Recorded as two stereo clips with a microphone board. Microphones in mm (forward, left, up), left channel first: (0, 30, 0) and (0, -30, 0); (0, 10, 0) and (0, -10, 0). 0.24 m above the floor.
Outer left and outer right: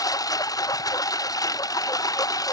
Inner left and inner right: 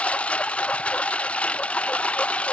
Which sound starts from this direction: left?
A lawn mower, at 0.0 s.